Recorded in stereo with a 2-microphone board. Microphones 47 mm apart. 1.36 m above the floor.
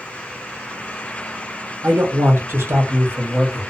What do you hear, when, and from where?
1.8 s a man speaking: 60° right (ahead or behind), 0.9 m